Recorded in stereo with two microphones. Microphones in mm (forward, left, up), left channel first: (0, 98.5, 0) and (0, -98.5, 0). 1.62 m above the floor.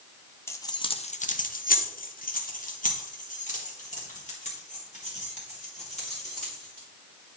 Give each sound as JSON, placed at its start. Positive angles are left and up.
{"t": 0.5, "sound": "keys jangling", "side_deg": 10, "distance_m": 0.7}